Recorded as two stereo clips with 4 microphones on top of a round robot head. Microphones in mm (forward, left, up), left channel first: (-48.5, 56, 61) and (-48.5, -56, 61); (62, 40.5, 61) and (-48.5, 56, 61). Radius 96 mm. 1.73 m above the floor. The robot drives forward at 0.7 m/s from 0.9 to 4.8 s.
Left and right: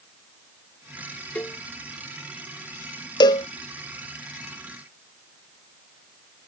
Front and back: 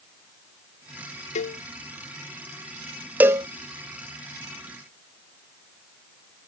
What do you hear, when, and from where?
1.4 s a cowbell: 10° left
3.2 s a cowbell: 105° left; by 3.5 s 130° left